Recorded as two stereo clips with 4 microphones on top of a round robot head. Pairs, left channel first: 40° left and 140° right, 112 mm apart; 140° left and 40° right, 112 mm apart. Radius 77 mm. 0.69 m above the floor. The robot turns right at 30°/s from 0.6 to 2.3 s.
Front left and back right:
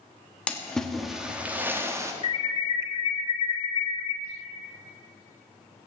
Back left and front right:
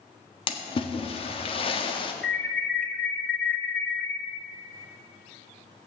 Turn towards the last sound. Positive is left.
turn(degrees=65)